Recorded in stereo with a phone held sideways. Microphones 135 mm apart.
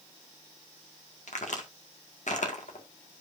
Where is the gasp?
No gasp in this recording.